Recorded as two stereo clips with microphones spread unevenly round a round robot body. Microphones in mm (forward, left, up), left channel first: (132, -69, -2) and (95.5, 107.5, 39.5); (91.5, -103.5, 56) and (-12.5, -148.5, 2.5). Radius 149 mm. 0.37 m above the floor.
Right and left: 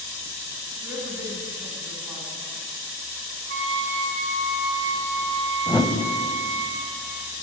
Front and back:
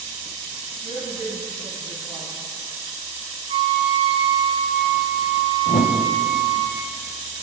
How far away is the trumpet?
About 1.3 m.